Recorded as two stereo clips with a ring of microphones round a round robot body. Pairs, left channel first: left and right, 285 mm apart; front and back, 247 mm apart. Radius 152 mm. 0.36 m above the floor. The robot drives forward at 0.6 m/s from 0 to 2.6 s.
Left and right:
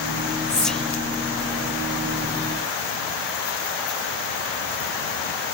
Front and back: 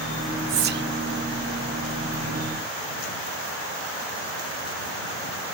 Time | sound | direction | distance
0.5 | whispering | 175° left | ?